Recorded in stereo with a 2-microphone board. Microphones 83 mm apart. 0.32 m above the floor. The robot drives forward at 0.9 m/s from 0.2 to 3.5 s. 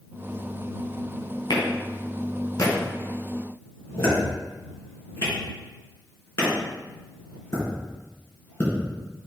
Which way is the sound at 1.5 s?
55° left (ahead or behind).